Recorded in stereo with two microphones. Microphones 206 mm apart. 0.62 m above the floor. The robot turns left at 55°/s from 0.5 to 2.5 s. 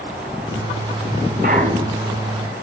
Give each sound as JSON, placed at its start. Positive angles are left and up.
{"t": 1.4, "sound": "a clunk", "azimuth_deg": -135, "distance_m": 3.0}